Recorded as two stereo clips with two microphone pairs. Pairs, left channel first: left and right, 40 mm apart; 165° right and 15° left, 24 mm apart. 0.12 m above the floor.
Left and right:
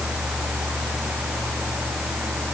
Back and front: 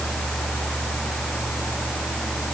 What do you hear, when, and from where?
Only background noise.